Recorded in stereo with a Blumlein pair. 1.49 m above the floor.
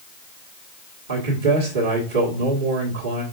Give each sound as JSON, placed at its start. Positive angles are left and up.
{"t": 1.1, "sound": "a man speaking", "azimuth_deg": -60, "distance_m": 1.6}